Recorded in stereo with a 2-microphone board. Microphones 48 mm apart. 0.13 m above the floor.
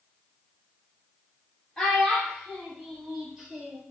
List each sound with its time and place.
1.8 s a child speaking: 15° left (ahead or behind), 2.5 m; by 3.8 s 10° right (ahead or behind), 2 m